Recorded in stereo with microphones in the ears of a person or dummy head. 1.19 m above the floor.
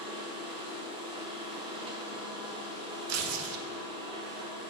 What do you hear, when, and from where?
0.0 s a machine running: 25° right (ahead or behind), 0.9 m
3.1 s tearing paper: 75° right (ahead or behind), 0.6 m